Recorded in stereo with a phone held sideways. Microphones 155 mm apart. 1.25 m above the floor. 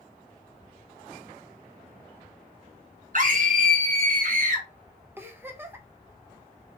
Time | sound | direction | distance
3.1 | a scream | 55° right (ahead or behind) | 1.4 m
5.2 | a giggle | 15° right (ahead or behind) | 0.9 m